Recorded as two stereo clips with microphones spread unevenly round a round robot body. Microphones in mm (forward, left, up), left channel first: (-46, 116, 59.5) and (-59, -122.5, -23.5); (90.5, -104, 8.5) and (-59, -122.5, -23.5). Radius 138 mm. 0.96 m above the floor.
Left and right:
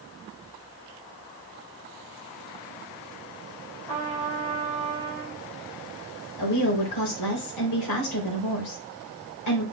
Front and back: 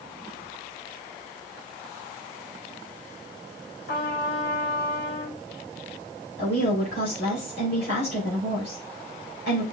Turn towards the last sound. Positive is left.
turn(degrees=60)